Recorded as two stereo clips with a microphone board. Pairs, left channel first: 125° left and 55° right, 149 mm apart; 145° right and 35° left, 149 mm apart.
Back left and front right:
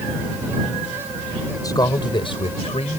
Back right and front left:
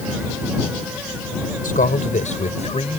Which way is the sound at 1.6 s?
170° right.